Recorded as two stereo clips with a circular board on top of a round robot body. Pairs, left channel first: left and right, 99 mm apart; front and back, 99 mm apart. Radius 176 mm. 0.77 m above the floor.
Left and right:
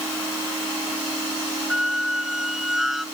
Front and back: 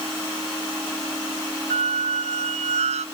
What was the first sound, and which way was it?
A squeak, 175° right.